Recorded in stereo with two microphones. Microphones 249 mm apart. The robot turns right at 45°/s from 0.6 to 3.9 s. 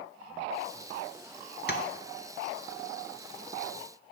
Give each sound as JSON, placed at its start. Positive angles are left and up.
{"t": 1.7, "sound": "tapping", "side_deg": 40, "distance_m": 0.7}